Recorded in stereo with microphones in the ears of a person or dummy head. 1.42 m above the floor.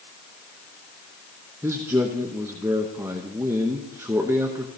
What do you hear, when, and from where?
1.6 s a man speaking: 15° right (ahead or behind), 0.7 m